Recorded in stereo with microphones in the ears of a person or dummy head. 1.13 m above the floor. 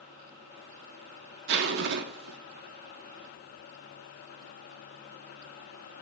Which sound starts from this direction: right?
A zipper, at 1.5 s.